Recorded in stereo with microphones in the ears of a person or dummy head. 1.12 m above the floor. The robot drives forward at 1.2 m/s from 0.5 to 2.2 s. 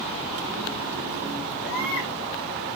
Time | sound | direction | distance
1.6 | a baby crying | 60° left (ahead or behind) | 8 m